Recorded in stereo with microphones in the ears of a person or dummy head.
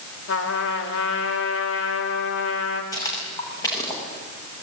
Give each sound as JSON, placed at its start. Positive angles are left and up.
{"t": 0.3, "sound": "a trumpet", "side_deg": 80, "distance_m": 3.5}
{"t": 2.9, "sound": "footsteps", "side_deg": 25, "distance_m": 8.0}